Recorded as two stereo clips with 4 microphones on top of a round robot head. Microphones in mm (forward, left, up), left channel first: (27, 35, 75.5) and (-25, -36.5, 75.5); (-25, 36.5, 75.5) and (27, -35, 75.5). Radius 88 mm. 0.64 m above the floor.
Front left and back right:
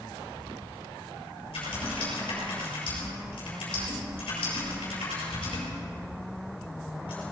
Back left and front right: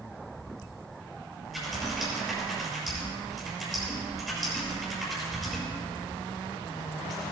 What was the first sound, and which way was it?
Typing on a keyboard, 35° left.